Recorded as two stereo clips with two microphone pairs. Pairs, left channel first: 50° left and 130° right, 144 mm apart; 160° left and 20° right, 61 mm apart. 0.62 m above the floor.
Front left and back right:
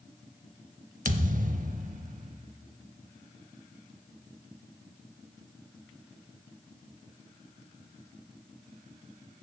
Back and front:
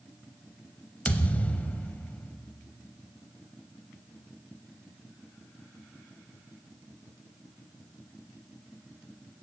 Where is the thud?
140° right, 0.7 m.